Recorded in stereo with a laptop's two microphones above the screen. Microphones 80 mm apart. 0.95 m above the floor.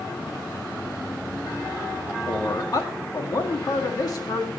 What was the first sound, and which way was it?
A man speaking, 50° left (ahead or behind).